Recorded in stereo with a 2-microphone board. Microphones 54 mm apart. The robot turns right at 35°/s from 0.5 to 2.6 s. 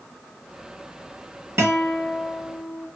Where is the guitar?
65° right, 1.1 m; by 2.9 s 25° right, 1.1 m.